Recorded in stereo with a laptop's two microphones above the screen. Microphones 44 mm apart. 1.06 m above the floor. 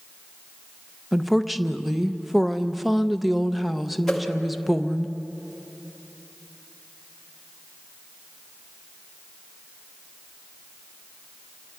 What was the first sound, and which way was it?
A woman speaking, 5° right (ahead or behind).